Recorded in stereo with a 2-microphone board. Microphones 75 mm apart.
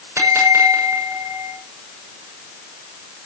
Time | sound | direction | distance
0.2 | a bell | 40° right (ahead or behind) | 7 m